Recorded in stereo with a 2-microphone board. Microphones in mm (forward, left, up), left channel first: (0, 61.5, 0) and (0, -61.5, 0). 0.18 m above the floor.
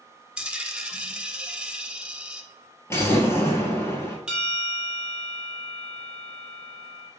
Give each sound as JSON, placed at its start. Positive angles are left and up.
{"t": 0.4, "sound": "a dropped coin", "side_deg": -10, "distance_m": 0.7}
{"t": 2.9, "sound": "an explosion", "side_deg": 20, "distance_m": 1.7}
{"t": 4.3, "sound": "a bell", "side_deg": -10, "distance_m": 2.0}